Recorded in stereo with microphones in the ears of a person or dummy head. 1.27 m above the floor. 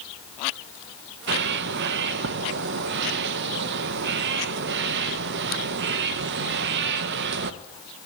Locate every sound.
1.3 s a bird: 60° right (ahead or behind), 0.9 m